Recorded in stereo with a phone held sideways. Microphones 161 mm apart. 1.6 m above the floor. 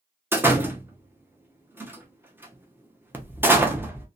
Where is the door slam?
15° right (ahead or behind), 0.5 m.